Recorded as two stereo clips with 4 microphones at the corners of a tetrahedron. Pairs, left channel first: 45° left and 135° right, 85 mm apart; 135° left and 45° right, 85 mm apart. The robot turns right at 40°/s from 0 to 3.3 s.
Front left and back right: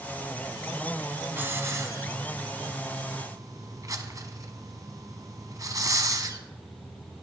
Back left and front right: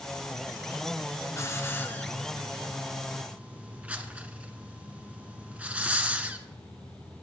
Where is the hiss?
170° left, 1.0 m; by 6.4 s 115° right, 1.0 m.